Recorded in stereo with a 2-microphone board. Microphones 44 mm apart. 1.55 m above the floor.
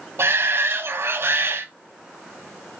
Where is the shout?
70° right (ahead or behind), 0.7 m.